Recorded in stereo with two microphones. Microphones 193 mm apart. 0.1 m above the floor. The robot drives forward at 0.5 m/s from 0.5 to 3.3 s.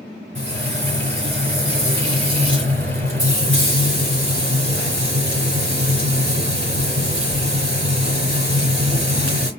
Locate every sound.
0.3 s frying: 75° right (ahead or behind), 3 m